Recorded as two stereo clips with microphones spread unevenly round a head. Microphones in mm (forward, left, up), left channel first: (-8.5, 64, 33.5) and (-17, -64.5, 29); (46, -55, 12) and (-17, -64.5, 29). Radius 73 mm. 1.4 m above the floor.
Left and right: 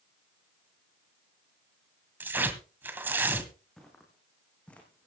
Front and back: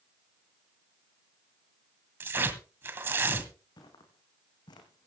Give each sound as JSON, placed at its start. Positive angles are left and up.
{"t": 2.2, "sound": "tearing paper", "azimuth_deg": -170, "distance_m": 1.6}
{"t": 3.8, "sound": "footsteps", "azimuth_deg": 0, "distance_m": 4.5}